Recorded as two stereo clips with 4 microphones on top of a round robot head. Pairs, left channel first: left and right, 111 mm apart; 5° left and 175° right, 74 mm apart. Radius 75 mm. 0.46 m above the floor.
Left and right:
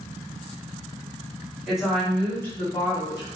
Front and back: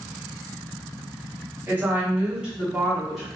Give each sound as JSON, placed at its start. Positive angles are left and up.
{"t": 1.7, "sound": "a woman speaking", "azimuth_deg": -170, "distance_m": 1.2}